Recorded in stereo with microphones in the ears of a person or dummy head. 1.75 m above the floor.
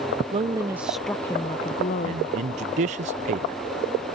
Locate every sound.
0.3 s a woman speaking: 30° right (ahead or behind); by 2.2 s 50° left (ahead or behind)
2.0 s a man speaking: 40° right (ahead or behind)